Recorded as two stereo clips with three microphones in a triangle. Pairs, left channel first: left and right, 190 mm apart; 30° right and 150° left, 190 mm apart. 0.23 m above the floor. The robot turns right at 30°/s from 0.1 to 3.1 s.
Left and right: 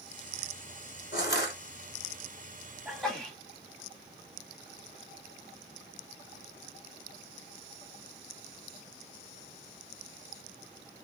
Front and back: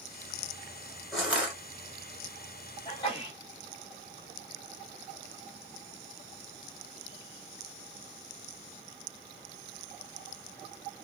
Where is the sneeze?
Straight ahead, 1.2 m; by 3.4 s 5° left, 1.2 m.